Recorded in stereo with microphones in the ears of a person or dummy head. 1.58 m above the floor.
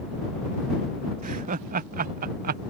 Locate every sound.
1.2 s laughter: 45° right (ahead or behind); by 2.6 s 40° right (ahead or behind)